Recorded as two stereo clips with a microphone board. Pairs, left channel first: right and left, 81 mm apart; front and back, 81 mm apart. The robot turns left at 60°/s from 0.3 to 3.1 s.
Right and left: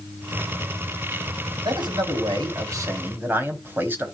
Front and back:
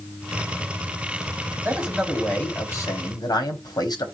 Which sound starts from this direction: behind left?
A man speaking, at 1.6 s.